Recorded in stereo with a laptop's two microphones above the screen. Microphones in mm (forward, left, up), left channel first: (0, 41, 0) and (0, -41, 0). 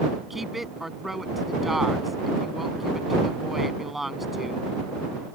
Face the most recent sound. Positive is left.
turn(degrees=0)  # may be behind; listen again after turning